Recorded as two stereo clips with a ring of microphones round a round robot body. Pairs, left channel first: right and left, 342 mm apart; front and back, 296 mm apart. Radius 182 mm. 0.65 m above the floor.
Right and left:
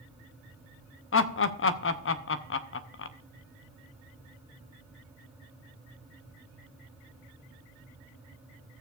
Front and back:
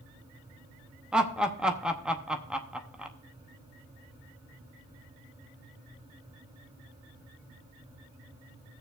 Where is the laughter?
95° right, 0.8 m.